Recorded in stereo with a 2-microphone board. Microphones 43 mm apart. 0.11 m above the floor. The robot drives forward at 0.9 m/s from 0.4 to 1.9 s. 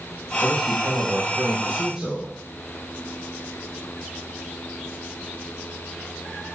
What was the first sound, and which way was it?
A man speaking, 10° right (ahead or behind).